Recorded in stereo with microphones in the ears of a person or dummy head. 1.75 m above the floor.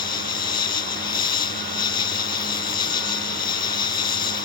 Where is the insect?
25° left (ahead or behind).